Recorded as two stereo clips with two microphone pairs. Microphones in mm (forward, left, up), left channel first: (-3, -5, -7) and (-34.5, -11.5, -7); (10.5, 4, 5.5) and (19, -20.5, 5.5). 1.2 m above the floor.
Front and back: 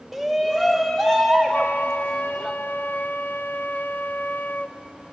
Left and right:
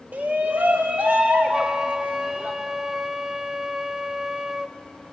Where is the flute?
5° right, 0.5 m.